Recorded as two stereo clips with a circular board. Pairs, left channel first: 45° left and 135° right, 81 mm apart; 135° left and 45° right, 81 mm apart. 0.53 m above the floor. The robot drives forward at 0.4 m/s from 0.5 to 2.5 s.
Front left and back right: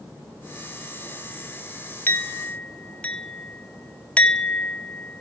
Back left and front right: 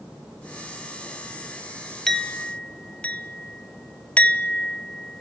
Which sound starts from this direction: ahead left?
A clink, at 2.1 s.